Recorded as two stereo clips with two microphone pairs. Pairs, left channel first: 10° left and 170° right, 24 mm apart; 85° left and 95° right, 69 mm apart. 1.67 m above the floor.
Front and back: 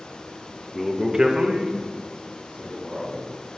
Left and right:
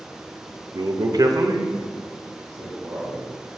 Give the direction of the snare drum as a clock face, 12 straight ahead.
I don't hear a snare drum.